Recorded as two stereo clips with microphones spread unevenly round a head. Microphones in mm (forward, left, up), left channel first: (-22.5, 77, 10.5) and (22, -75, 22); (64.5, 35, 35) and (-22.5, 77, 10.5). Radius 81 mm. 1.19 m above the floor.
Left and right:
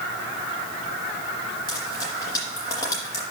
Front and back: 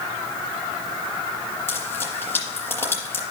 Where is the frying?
35° left, 5 m.